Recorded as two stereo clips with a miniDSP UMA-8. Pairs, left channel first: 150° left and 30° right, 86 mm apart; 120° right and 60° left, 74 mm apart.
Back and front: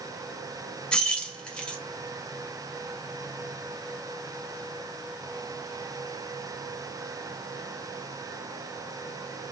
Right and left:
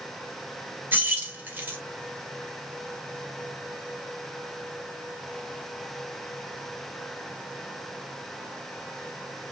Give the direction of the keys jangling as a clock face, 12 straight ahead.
9 o'clock.